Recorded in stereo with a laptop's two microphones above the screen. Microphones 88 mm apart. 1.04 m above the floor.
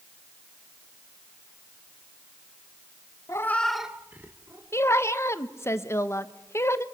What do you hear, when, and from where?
3.3 s a cat meowing: 35° left (ahead or behind), 0.7 m; by 4.6 s 30° right (ahead or behind), 1.6 m
4.7 s a woman speaking: 30° left (ahead or behind), 0.7 m